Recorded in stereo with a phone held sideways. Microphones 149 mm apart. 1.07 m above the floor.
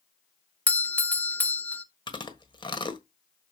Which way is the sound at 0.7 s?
10° left (ahead or behind).